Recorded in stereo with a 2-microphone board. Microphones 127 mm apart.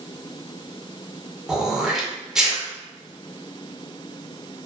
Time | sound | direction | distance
1.5 | throat clearing | 5° right (ahead or behind) | 0.5 m